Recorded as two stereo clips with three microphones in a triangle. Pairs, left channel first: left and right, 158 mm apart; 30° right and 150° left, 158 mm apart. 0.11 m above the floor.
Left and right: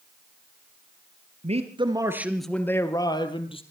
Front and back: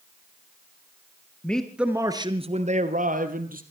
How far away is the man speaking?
About 1.7 m.